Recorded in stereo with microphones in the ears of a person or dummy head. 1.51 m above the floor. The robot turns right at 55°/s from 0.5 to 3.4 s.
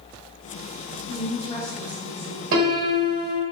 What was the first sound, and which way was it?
A woman speaking, 130° left.